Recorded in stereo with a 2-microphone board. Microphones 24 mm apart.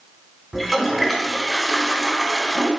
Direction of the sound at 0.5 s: Centre (ahead or behind).